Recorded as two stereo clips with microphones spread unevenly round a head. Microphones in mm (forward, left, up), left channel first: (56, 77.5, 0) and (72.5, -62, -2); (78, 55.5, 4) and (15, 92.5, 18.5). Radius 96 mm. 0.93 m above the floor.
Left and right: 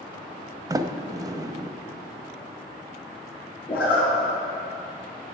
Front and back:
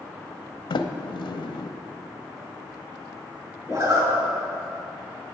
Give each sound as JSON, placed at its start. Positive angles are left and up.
{"t": 0.7, "sound": "a sliding door", "azimuth_deg": -15, "distance_m": 0.6}
{"t": 3.7, "sound": "a zipper", "azimuth_deg": 110, "distance_m": 3.5}